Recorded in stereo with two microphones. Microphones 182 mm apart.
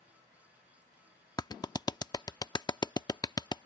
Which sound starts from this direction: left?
A clap, at 1.4 s.